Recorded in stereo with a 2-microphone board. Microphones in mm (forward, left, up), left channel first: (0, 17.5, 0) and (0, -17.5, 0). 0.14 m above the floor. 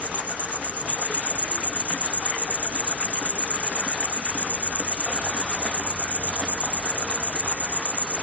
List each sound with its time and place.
0.0 s an insect: 50° right (ahead or behind), 0.8 m